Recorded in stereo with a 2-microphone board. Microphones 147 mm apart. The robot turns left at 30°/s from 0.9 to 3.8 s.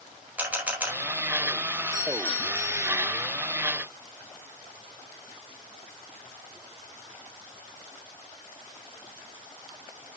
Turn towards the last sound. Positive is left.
turn(degrees=-30)